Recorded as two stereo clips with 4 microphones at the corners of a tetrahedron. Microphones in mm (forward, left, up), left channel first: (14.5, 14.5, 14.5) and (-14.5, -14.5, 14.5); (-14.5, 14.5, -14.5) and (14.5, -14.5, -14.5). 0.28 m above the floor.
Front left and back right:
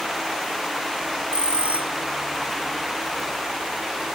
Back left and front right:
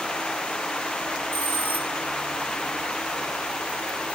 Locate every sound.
1.3 s a bell: 155° left, 1.9 m